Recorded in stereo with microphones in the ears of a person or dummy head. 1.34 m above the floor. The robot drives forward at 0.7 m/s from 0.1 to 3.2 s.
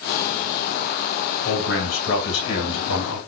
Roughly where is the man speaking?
Left.